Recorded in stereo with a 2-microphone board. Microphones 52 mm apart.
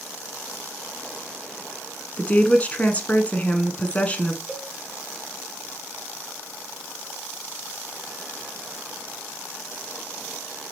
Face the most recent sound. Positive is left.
turn(degrees=-25)  # may be behind; listen again after turning